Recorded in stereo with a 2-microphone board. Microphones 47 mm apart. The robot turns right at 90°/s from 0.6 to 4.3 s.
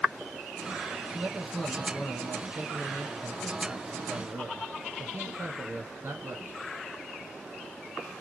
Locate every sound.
1.1 s a man speaking: 40° right, 4 m; by 6.6 s 115° right, 4 m